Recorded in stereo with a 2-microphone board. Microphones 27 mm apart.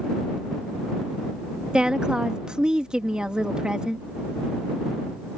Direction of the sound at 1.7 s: 30° right (ahead or behind).